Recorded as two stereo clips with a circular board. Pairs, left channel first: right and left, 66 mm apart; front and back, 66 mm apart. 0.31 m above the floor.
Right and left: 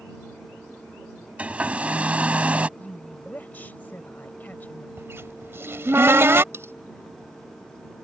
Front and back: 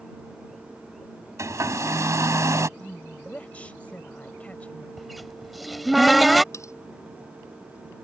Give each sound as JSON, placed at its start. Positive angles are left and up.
{"t": 1.4, "sound": "a hair dryer", "azimuth_deg": 155}
{"t": 2.8, "sound": "a woman speaking", "azimuth_deg": -50}
{"t": 5.0, "sound": "a cupboard door", "azimuth_deg": 90}
{"t": 6.5, "sound": "cutlery clinking", "azimuth_deg": 40}